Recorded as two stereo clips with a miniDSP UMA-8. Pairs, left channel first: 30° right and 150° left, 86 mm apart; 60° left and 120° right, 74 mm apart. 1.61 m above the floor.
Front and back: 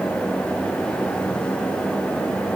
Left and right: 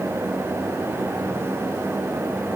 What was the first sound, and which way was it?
Only background noise.